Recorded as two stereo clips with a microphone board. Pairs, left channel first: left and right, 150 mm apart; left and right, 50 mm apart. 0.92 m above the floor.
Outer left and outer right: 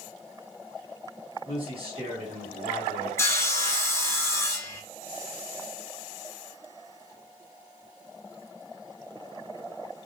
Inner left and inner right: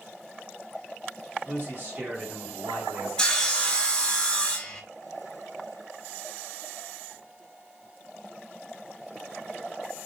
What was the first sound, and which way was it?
A man speaking, 40° right (ahead or behind).